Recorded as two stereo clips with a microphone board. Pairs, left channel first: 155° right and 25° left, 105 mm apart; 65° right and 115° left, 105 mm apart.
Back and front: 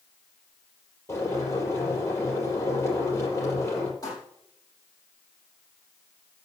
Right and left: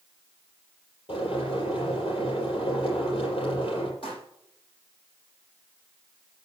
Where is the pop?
105° right, 6.5 m.